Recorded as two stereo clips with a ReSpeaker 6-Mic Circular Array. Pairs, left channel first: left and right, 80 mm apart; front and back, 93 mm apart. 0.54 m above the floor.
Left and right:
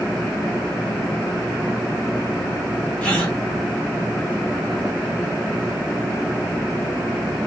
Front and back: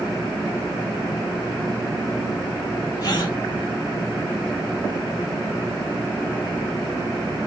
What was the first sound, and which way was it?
A gasp, 15° left.